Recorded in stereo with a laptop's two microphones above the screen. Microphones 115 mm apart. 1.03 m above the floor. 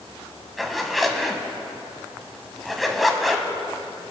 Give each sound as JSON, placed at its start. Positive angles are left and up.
{"t": 0.6, "sound": "a zipper", "side_deg": 0, "distance_m": 1.3}